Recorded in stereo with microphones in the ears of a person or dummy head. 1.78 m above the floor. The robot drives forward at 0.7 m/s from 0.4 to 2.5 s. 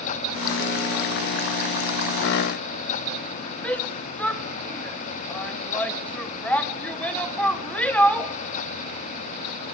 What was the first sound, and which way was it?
A shout, 10° left (ahead or behind).